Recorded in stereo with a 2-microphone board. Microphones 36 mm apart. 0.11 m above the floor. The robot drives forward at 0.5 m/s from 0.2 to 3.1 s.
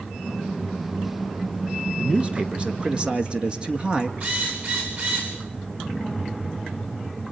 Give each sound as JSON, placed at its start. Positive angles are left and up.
{"t": 2.0, "sound": "a man speaking", "side_deg": -30, "distance_m": 1.6}
{"t": 4.2, "sound": "a drill", "side_deg": -55, "distance_m": 8.5}